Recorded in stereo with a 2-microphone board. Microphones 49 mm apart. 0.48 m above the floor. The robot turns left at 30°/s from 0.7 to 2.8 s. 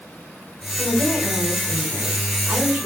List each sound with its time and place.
0.8 s a woman speaking: 35° left, 4 m; by 2.9 s 25° right, 4 m